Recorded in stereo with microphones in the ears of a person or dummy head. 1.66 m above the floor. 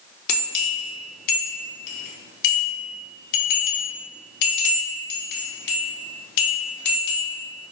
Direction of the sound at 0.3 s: 55° left (ahead or behind).